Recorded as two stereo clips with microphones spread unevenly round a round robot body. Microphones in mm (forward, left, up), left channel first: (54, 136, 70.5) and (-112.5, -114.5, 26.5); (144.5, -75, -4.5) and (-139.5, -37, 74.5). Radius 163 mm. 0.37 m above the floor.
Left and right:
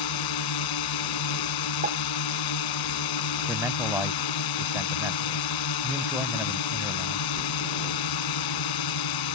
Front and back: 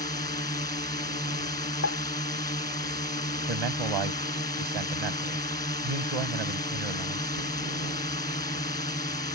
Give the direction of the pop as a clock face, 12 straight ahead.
2 o'clock.